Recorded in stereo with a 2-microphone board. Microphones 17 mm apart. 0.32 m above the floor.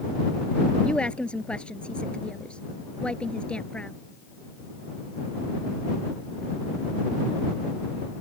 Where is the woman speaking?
75° left (ahead or behind).